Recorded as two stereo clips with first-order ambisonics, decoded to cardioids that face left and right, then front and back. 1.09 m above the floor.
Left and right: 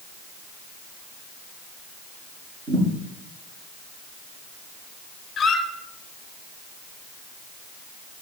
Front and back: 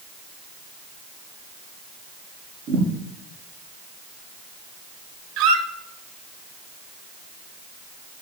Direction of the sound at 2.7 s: 135° right.